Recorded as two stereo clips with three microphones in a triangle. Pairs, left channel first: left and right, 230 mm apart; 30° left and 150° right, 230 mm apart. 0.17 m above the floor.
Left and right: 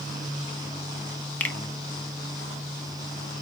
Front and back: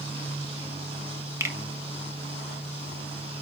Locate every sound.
1.4 s a finger snap: 160° left, 0.8 m